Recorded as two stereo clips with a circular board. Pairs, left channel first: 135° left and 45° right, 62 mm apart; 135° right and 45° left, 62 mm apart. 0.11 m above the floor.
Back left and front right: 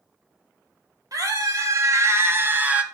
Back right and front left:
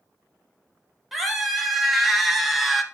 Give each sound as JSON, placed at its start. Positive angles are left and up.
{"t": 1.1, "sound": "a scream", "azimuth_deg": -40, "distance_m": 2.5}